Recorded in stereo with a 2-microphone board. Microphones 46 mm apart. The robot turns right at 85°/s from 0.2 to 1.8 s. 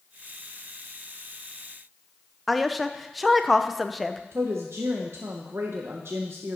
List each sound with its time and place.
2.5 s a woman speaking: 5° right (ahead or behind), 0.6 m
4.3 s a woman speaking: 70° right (ahead or behind), 0.9 m